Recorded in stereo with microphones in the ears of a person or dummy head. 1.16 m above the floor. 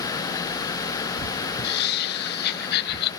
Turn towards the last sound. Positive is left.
turn(degrees=60)  # may be behind; listen again after turning